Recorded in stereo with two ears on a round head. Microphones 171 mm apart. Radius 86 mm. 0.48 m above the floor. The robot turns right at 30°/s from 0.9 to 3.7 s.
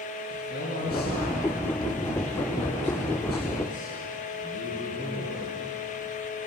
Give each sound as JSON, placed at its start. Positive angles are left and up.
{"t": 0.3, "sound": "a man speaking", "azimuth_deg": 50, "distance_m": 6.0}